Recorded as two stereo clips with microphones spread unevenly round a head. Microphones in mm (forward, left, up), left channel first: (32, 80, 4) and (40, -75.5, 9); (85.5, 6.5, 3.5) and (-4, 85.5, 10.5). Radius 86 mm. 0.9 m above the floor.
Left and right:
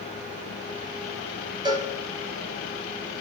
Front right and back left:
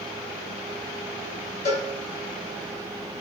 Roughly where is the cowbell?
Ahead right.